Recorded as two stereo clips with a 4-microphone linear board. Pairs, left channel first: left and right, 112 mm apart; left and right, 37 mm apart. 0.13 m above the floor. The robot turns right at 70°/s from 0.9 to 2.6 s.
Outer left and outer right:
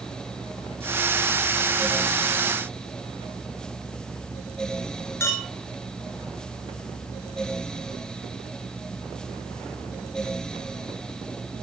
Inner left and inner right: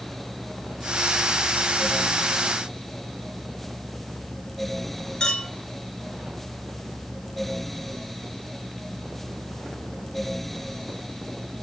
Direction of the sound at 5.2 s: 20° left (ahead or behind).